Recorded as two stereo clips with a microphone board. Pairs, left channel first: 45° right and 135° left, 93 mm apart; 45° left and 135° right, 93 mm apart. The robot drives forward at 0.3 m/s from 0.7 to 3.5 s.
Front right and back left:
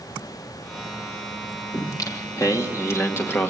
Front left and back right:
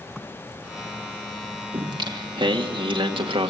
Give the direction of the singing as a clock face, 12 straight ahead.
3 o'clock.